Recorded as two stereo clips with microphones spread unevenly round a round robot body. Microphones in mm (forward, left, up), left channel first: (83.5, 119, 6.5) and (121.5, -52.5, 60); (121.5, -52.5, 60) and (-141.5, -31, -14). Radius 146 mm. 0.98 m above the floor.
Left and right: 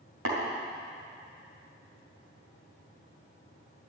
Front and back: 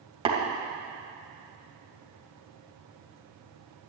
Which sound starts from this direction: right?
Tapping, at 0.2 s.